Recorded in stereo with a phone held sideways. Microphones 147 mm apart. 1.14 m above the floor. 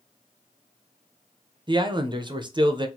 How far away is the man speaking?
About 0.6 m.